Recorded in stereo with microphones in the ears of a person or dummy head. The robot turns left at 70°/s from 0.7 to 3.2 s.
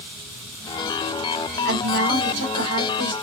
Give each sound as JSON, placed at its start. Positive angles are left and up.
{"t": 1.6, "sound": "a woman speaking", "azimuth_deg": -55, "distance_m": 3.5}